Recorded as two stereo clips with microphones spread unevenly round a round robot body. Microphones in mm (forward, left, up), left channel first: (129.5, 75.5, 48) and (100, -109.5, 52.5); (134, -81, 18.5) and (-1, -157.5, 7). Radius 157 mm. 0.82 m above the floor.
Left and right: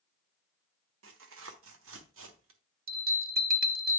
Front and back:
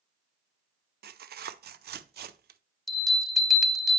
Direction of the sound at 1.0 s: 130° right.